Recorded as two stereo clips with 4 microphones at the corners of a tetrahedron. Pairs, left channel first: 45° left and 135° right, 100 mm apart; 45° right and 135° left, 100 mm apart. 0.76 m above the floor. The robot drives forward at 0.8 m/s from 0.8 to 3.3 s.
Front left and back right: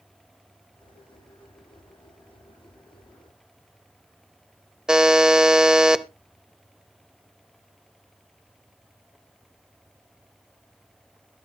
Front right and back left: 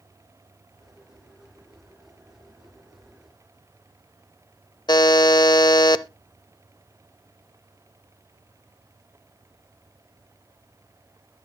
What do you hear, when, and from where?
4.9 s a buzzer: 55° right, 0.6 m